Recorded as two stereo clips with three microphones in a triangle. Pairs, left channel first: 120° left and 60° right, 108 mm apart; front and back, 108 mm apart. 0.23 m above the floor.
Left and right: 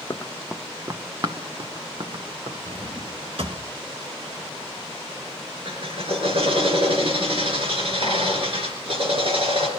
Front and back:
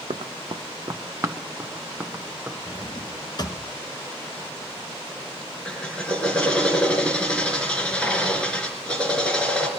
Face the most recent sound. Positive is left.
turn(degrees=-80)